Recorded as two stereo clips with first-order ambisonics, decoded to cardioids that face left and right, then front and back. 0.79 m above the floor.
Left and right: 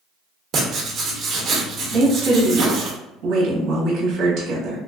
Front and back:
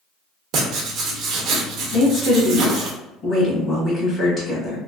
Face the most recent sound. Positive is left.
turn(degrees=-55)